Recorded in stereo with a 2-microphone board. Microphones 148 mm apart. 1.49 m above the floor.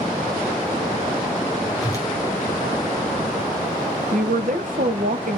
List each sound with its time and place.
1.8 s a whoosh: 25° left (ahead or behind), 1.0 m
4.1 s a woman speaking: 65° right (ahead or behind), 1.0 m